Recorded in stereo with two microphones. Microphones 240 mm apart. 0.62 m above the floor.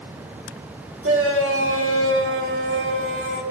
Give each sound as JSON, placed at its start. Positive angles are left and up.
{"t": 1.0, "sound": "a shout", "side_deg": -65, "distance_m": 2.0}